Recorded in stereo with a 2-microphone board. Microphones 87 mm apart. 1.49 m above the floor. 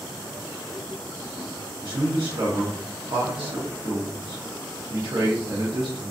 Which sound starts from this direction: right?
A man speaking, at 1.8 s.